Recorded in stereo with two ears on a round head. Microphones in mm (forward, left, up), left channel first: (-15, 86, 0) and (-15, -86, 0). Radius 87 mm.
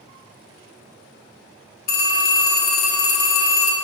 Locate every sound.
1.9 s a phone ringing: 45° left (ahead or behind), 1.8 m